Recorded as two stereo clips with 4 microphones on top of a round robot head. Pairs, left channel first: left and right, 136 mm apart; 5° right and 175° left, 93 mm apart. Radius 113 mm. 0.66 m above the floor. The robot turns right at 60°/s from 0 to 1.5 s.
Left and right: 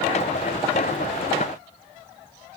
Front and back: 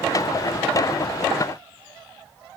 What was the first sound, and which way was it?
Only background noise.